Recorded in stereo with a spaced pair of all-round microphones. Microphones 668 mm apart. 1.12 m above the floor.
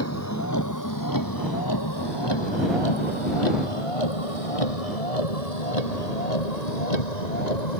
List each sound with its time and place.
0.0 s a vehicle: 20° left (ahead or behind); by 7.8 s 80° left